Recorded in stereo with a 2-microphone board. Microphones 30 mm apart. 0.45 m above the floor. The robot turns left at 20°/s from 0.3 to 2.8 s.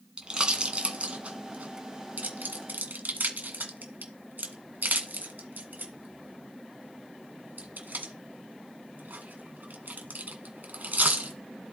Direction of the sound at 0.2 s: 25° right (ahead or behind).